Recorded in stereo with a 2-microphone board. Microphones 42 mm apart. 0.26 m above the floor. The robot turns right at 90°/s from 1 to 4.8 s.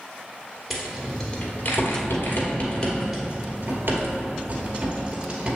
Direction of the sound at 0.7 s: 5° right (ahead or behind).